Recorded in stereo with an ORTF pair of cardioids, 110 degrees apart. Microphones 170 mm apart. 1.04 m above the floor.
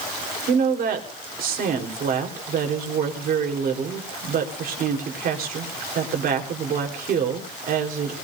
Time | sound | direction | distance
0.5 | a woman speaking | 60° right | 3.5 m